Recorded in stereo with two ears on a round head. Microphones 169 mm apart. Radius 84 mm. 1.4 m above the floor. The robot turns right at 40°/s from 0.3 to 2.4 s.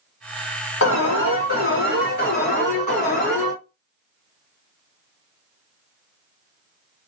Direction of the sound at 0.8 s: 80° left.